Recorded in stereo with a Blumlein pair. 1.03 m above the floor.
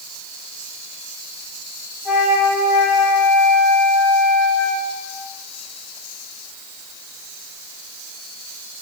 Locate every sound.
2.0 s a flute: 20° left, 3 m